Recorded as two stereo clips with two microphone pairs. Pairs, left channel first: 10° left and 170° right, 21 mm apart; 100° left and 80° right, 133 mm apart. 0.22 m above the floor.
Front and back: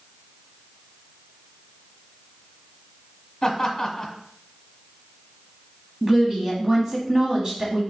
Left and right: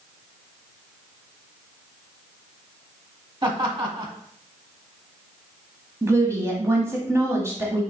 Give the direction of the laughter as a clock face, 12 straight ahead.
2 o'clock.